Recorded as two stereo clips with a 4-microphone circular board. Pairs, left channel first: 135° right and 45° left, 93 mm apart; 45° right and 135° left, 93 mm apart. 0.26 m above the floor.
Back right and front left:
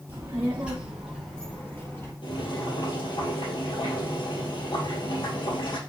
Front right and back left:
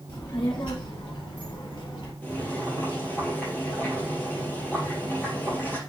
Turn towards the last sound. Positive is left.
turn(degrees=-115)